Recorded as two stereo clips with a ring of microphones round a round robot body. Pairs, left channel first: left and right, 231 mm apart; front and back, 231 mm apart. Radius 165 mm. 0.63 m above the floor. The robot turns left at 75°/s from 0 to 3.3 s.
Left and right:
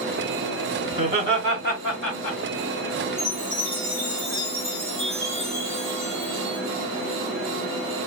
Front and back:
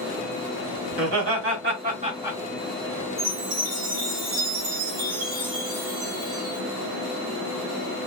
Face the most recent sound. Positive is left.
turn(degrees=-170)